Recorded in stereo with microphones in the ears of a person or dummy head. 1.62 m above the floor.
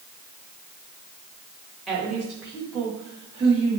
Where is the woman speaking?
5° right (ahead or behind), 3 m; by 3.8 s 25° right (ahead or behind), 3 m.